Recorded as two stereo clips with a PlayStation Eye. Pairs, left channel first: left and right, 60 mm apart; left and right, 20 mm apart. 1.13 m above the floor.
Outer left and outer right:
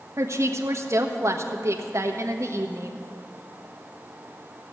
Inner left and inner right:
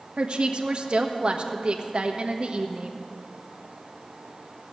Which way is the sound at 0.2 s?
55° right (ahead or behind).